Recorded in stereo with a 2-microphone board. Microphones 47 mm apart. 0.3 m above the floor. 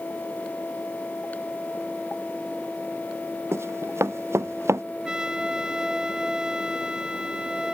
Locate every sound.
3.5 s running footsteps: 70° right (ahead or behind); by 4.8 s 75° right (ahead or behind)
5.0 s a trumpet: 15° right (ahead or behind)